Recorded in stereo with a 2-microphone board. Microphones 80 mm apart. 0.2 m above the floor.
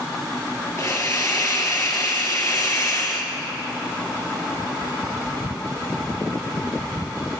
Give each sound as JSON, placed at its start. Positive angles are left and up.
{"t": 0.8, "sound": "a hiss", "side_deg": 45, "distance_m": 2.5}